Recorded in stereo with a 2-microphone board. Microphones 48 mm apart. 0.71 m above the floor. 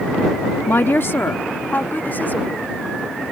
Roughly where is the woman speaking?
Left.